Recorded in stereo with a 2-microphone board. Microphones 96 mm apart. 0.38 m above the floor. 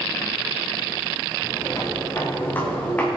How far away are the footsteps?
About 4.5 m.